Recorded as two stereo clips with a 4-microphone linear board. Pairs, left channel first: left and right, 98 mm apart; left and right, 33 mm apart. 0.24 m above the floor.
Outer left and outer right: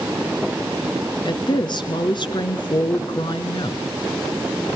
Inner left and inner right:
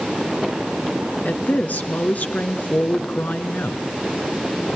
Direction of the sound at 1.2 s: 50° left (ahead or behind).